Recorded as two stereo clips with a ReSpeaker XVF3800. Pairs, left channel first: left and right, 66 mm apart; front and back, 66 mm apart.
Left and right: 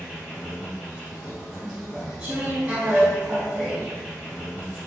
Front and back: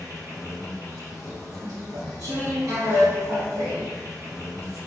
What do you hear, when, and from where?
0.0 s an insect: straight behind, 1.9 m
1.6 s chewing: 160° right, 1.6 m